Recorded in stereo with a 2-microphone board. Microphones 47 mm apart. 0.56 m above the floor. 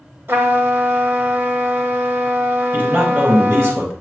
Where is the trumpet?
50° right (ahead or behind), 1.6 m.